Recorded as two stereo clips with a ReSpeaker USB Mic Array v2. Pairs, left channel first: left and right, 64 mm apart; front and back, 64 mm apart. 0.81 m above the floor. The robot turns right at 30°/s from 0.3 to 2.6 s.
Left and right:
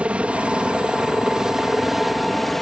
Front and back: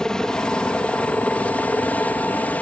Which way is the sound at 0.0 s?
60° right.